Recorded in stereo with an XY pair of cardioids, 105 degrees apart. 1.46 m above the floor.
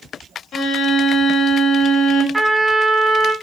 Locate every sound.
0.5 s a violin: 55° left, 0.6 m
2.3 s a trumpet: 15° right, 1.2 m